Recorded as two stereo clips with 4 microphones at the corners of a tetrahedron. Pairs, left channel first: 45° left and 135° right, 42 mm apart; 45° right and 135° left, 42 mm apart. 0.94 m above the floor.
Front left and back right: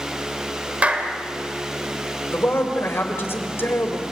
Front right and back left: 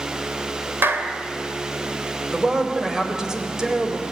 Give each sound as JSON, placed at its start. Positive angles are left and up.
{"t": 0.8, "sound": "a clap", "azimuth_deg": 165, "distance_m": 2.5}
{"t": 2.3, "sound": "a man speaking", "azimuth_deg": 60, "distance_m": 4.0}